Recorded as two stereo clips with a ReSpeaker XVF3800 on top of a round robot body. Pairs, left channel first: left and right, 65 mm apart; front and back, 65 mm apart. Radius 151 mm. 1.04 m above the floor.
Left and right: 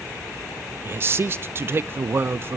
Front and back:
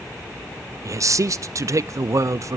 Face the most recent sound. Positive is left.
turn(degrees=-140)